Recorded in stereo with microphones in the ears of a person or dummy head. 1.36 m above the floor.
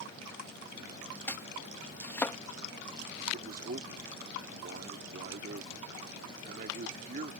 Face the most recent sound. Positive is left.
turn(degrees=-55)  # may be behind; listen again after turning